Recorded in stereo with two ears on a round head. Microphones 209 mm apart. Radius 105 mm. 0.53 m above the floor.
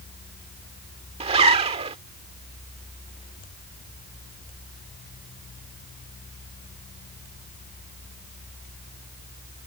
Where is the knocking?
No knocking in this recording.